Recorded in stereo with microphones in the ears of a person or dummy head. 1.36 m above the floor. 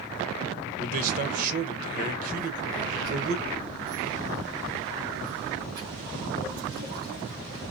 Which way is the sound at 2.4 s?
50° right (ahead or behind).